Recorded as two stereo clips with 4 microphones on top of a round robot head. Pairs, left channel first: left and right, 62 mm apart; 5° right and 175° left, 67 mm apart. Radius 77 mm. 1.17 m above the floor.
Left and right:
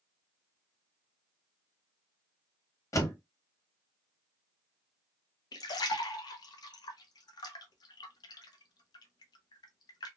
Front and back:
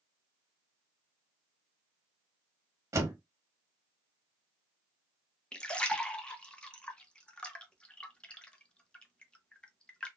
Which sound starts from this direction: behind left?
A door slam, at 2.9 s.